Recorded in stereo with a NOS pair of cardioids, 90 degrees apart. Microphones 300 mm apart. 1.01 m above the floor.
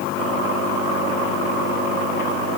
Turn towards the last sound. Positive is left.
No sound to turn to.